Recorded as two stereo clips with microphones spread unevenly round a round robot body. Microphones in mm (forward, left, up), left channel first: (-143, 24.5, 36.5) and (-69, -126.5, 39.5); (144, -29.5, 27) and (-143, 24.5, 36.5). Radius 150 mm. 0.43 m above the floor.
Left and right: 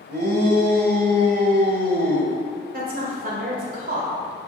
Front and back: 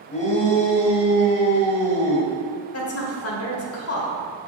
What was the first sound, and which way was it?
A shout, 75° right.